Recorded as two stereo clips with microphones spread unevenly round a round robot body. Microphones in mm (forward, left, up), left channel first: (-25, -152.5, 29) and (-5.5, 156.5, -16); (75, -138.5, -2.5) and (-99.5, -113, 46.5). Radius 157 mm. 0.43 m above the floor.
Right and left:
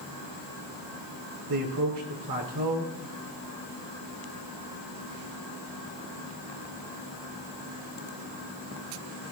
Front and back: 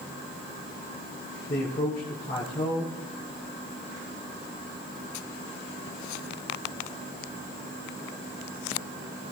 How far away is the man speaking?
About 4.5 m.